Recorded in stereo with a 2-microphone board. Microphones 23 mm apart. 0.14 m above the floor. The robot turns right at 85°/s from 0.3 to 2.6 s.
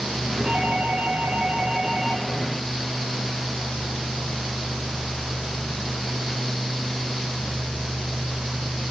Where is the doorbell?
150° right, 5 m; by 2.2 s straight ahead, 5 m.